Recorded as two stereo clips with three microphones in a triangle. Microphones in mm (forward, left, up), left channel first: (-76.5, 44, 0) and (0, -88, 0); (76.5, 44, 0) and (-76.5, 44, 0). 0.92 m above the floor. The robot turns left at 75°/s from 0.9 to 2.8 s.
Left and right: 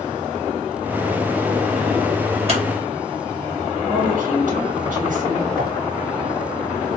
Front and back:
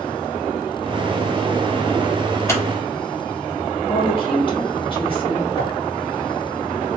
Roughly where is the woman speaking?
Ahead right.